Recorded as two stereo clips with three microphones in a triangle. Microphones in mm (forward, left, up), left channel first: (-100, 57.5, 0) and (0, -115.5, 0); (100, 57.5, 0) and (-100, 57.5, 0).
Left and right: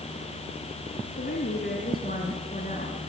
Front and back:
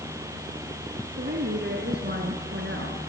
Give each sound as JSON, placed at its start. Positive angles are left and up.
{"t": 1.2, "sound": "a woman speaking", "azimuth_deg": 150, "distance_m": 3.0}